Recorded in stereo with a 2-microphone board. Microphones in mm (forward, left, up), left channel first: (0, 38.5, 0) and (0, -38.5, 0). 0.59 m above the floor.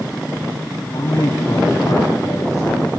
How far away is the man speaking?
About 4 m.